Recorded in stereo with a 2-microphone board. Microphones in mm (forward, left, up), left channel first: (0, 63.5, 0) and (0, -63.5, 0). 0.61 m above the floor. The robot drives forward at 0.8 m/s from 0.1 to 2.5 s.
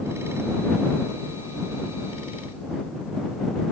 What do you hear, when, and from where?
Only background noise.